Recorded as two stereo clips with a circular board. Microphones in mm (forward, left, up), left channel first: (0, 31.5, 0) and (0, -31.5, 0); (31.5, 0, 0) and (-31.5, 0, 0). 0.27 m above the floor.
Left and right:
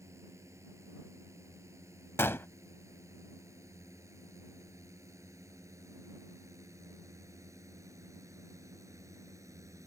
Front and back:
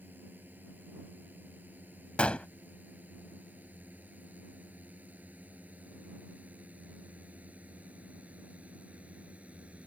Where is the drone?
125° right; by 9.9 s 115° right.